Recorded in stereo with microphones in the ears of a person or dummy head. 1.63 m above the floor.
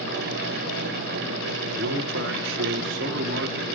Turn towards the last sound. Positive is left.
turn(degrees=-70)  # may be behind; listen again after turning